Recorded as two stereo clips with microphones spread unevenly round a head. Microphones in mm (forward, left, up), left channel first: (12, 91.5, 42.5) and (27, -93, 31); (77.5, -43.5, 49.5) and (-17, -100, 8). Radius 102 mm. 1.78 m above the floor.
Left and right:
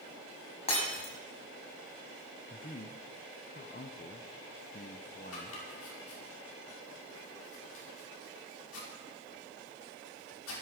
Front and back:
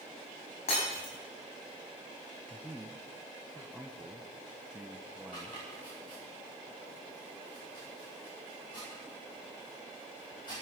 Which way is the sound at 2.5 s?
95° left.